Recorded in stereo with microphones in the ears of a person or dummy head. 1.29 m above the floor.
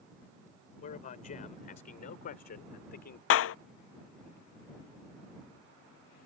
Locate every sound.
0.8 s a man speaking: 40° left (ahead or behind); by 3.2 s 50° left (ahead or behind)
3.3 s a clap: 70° left (ahead or behind)